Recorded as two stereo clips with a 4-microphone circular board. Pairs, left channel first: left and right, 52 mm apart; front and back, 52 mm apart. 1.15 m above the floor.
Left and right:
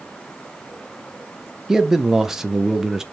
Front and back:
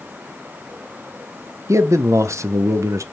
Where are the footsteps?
No footsteps in this recording.